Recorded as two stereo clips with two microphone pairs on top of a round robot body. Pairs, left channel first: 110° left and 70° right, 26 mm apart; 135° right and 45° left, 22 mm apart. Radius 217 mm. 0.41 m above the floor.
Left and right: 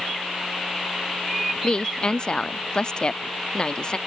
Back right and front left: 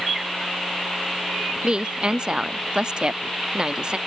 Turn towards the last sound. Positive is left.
turn(degrees=80)